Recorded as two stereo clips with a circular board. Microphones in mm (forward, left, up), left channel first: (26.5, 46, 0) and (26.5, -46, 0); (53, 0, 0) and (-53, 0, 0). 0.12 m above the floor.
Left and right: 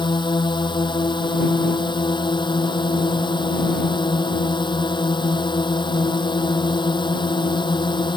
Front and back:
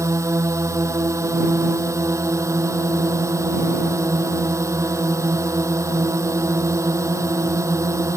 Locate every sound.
0.0 s a drone: 120° left